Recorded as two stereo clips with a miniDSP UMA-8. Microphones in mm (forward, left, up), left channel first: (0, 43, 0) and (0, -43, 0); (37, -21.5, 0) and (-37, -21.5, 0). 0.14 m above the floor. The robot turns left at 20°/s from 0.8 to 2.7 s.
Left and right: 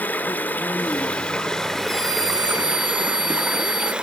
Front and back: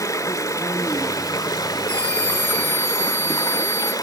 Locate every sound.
0.0 s running water: 25° left, 0.7 m; by 4.0 s 10° right, 0.7 m
1.9 s a scream: 75° left, 6 m; by 3.9 s 60° left, 6 m